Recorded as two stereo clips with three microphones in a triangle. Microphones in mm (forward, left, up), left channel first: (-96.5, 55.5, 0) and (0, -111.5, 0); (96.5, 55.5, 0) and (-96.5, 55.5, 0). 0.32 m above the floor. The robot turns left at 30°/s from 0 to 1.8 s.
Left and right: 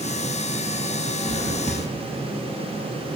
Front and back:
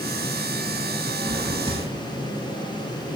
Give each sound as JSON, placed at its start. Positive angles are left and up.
{"t": 1.2, "sound": "a drawer", "azimuth_deg": -100, "distance_m": 8.5}